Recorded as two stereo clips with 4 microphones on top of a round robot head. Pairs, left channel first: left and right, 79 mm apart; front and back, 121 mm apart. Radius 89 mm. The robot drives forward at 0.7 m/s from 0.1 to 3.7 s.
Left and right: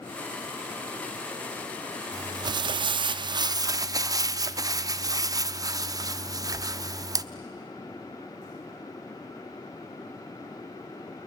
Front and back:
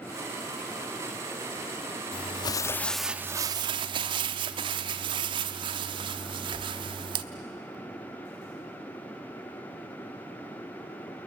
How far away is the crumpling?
About 0.9 m.